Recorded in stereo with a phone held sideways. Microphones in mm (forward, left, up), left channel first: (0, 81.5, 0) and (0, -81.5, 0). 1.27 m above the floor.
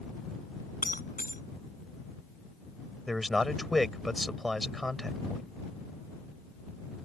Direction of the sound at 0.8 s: 60° left (ahead or behind).